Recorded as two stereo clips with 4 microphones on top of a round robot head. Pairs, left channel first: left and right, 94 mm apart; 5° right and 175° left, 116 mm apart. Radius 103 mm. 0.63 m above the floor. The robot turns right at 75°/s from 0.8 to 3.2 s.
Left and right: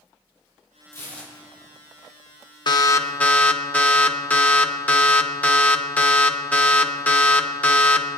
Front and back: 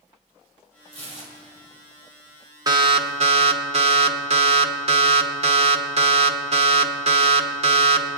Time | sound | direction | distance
0.9 | tearing paper | 145° left | 3.5 m
2.7 | an alarm | 120° left | 1.1 m